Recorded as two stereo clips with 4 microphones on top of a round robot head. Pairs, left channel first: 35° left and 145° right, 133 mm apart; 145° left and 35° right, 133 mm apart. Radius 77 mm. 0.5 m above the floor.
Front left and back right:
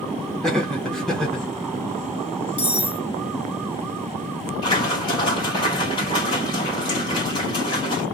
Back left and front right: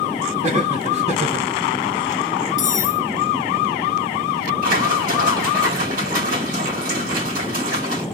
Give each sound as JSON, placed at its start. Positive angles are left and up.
{"t": 0.4, "sound": "laughter", "azimuth_deg": -50, "distance_m": 1.2}
{"t": 2.6, "sound": "cutlery clinking", "azimuth_deg": 140, "distance_m": 0.7}
{"t": 4.6, "sound": "a splash", "azimuth_deg": -20, "distance_m": 2.0}